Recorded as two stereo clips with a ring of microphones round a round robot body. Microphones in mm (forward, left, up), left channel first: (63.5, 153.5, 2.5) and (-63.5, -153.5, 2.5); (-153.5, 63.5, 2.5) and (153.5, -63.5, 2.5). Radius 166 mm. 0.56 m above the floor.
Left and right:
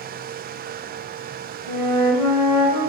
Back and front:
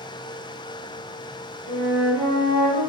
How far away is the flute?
About 1.6 m.